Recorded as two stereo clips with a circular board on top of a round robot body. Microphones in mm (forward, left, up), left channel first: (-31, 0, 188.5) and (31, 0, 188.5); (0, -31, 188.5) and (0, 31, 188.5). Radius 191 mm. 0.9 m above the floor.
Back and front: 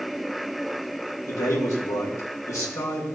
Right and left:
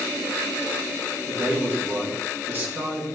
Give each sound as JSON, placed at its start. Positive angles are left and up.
{"t": 1.3, "sound": "a man speaking", "azimuth_deg": 145, "distance_m": 1.8}